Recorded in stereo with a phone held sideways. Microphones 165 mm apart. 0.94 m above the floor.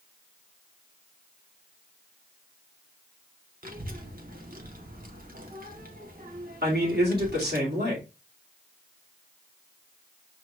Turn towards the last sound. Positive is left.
turn(degrees=-80)